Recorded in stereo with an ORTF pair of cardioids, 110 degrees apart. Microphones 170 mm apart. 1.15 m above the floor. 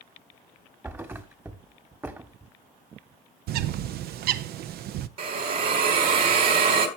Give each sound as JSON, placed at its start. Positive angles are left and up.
{"t": 0.8, "sound": "a thud", "azimuth_deg": -15, "distance_m": 1.4}
{"t": 3.5, "sound": "a bird", "azimuth_deg": -70, "distance_m": 0.7}
{"t": 5.2, "sound": "a hiss", "azimuth_deg": -65, "distance_m": 3.0}